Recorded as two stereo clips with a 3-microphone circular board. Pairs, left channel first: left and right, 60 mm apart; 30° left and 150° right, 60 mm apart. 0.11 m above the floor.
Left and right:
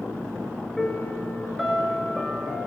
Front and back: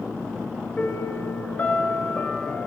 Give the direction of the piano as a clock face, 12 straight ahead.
12 o'clock.